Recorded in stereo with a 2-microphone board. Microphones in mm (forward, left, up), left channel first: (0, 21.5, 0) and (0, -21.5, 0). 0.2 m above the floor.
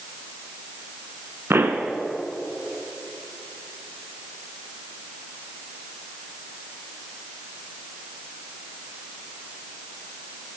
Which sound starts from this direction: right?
A pop, at 1.5 s.